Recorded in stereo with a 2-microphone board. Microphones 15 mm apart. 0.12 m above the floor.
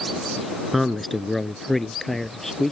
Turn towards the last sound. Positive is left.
turn(degrees=15)  # may be behind; listen again after turning